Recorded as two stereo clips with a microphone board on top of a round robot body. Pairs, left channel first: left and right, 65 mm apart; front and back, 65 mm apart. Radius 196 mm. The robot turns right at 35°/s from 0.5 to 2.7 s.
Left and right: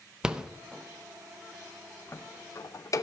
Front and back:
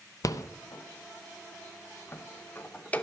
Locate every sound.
0.2 s a rattle: 15° right, 0.9 m; by 3.0 s 60° left, 0.9 m